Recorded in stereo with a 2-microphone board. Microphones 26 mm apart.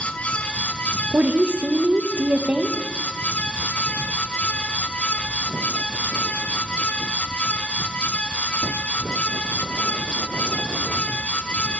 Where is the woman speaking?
65° right (ahead or behind), 1.0 m.